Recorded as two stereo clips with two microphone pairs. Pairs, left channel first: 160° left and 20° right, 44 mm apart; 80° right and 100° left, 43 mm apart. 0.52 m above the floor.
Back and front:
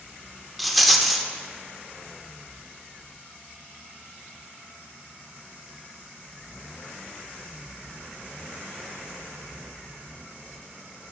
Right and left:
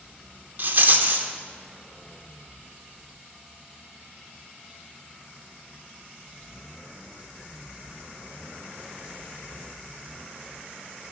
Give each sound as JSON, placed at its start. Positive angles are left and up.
{"t": 0.6, "sound": "a rattle", "azimuth_deg": 75, "distance_m": 0.6}